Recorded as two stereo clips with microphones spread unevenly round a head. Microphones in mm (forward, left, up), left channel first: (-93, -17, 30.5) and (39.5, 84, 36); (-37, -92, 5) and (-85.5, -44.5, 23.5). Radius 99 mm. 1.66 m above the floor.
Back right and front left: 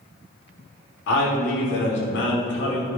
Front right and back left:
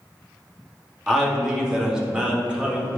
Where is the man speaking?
145° right, 3 m; by 3.0 s 160° right, 2 m.